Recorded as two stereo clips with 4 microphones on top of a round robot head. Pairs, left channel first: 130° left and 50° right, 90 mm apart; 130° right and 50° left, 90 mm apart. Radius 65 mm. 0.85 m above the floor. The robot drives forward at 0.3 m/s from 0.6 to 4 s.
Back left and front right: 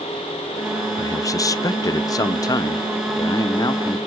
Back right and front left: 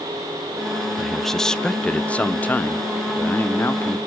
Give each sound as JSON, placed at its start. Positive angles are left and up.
{"t": 1.0, "sound": "a man speaking", "azimuth_deg": 140, "distance_m": 0.6}